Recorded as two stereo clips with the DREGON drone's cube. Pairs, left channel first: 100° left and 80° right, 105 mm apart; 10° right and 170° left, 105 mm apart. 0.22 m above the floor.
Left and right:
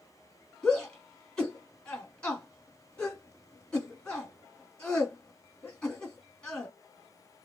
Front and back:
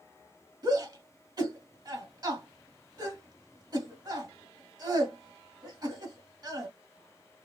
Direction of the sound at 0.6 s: 175° left.